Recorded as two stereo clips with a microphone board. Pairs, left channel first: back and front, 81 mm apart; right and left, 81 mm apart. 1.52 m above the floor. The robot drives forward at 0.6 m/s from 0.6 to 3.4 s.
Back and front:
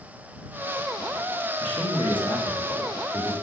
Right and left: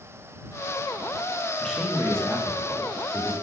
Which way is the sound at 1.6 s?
170° right.